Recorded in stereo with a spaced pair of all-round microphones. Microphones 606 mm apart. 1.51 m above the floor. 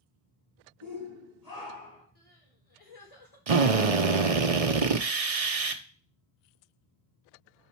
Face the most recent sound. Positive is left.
turn(degrees=-60)  # may be behind; listen again after turning